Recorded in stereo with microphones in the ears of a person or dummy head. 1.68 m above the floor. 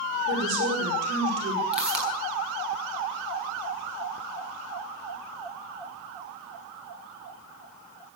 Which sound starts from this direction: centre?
A pop, at 1.7 s.